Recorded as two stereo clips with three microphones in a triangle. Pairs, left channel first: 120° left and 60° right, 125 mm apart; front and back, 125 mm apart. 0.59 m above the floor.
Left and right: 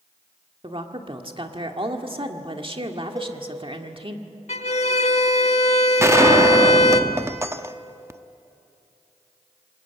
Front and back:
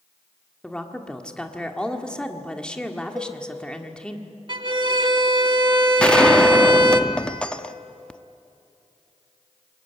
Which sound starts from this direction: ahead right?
A gunshot, at 6.0 s.